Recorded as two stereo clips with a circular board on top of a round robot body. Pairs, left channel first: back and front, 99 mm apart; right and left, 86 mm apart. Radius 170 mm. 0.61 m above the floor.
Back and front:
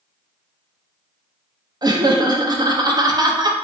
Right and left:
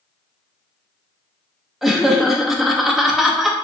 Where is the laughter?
Straight ahead, 0.7 m.